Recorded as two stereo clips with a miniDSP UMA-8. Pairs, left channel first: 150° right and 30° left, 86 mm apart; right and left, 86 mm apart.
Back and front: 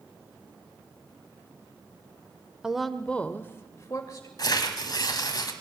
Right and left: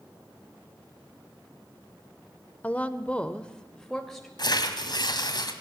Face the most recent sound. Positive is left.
turn(degrees=-115)